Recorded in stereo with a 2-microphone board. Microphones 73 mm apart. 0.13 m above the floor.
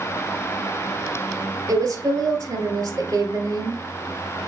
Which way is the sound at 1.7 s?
45° right (ahead or behind).